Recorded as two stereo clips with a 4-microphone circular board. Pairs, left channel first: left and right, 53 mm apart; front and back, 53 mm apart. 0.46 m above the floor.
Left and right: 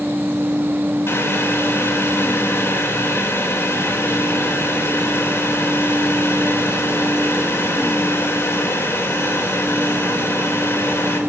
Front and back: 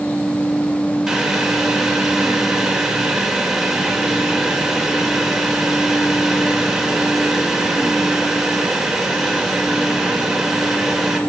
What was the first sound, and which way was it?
Boiling, 100° left.